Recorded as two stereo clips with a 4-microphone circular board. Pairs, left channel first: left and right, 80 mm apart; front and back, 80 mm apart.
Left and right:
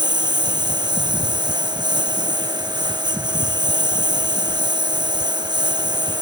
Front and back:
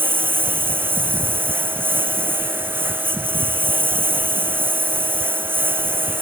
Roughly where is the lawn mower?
Behind right.